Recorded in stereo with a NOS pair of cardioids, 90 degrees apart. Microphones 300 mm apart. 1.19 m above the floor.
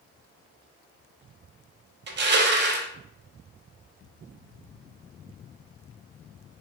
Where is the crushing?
35° right, 0.6 m.